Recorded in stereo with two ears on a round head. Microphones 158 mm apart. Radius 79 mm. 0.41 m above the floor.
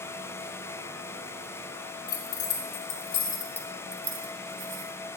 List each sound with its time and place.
2.1 s keys jangling: 60° left (ahead or behind), 2.5 m; by 4.9 s 50° right (ahead or behind), 1.9 m